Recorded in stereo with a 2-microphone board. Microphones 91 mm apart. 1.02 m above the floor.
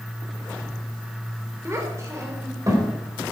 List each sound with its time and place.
1.6 s a child speaking: 30° right (ahead or behind), 3 m; by 2.9 s 40° right (ahead or behind), 3.5 m